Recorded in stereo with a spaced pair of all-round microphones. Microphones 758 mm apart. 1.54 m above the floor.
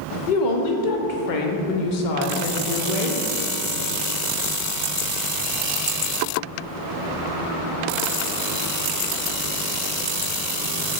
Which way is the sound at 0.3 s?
80° left.